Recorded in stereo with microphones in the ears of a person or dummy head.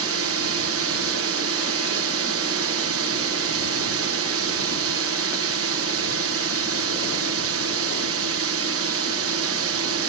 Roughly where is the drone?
Right.